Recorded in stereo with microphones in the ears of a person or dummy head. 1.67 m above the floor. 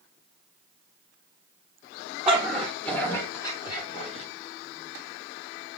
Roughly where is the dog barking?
Centre.